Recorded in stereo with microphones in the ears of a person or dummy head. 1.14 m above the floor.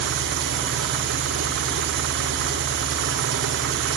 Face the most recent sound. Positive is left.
turn(degrees=-60)  # may be behind; listen again after turning